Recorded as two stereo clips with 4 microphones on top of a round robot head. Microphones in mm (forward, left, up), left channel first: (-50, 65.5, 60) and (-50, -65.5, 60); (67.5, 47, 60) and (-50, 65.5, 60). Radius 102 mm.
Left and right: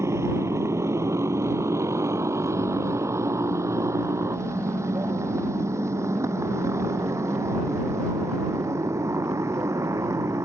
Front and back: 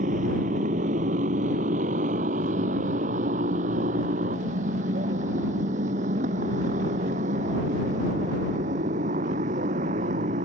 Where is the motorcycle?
160° right.